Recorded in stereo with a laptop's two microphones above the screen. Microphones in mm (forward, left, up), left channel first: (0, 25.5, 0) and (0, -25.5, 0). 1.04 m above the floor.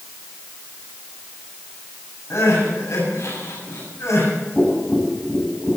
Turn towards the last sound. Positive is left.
turn(degrees=15)  # may be behind; listen again after turning